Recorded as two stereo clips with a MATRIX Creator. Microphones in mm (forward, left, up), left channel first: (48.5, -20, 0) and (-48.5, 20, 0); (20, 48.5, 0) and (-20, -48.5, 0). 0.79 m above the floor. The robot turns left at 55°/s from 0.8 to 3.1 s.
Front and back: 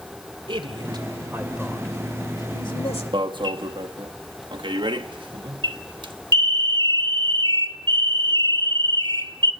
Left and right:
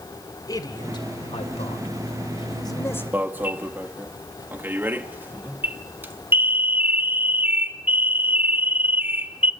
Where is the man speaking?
120° left, 2.5 m; by 3.0 s 5° right, 2.5 m.